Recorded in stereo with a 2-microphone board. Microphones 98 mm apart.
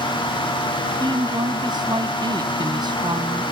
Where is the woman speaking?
50° right (ahead or behind).